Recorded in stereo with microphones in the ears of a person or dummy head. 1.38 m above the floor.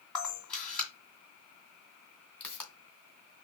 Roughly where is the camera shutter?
Centre.